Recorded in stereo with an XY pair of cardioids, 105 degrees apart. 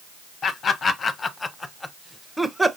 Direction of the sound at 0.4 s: 50° left.